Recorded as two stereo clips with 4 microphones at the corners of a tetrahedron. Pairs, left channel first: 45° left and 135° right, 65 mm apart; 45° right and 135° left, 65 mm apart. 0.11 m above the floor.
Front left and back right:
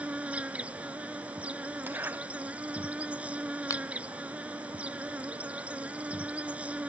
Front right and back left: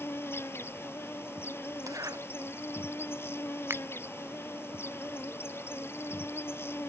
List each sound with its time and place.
0.0 s an insect: 75° right
1.9 s a zipper: 165° left
3.7 s a finger snap: 80° left